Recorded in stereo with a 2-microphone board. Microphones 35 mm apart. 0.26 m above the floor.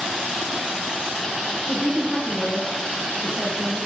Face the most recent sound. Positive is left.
turn(degrees=-5)  # may be behind; listen again after turning